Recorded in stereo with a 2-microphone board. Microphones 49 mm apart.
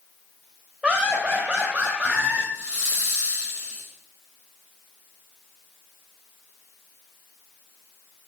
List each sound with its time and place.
0.8 s laughter: 20° right (ahead or behind), 2 m; by 2.4 s 25° right (ahead or behind), 3 m
2.5 s a hiss: 35° right (ahead or behind), 6.5 m